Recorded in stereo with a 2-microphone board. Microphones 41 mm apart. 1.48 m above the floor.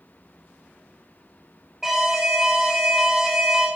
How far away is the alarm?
About 1.5 m.